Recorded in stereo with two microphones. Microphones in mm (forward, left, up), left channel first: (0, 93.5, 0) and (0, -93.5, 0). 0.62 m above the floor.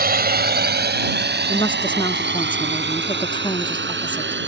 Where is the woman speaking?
25° left (ahead or behind).